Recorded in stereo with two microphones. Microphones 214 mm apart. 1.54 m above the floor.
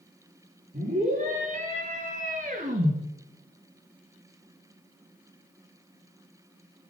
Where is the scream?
35° right (ahead or behind), 4.5 m.